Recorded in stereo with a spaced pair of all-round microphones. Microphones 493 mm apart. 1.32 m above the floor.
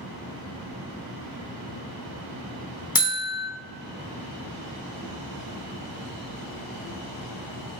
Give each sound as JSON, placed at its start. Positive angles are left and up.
{"t": 3.0, "sound": "a buzzer", "side_deg": 45, "distance_m": 0.7}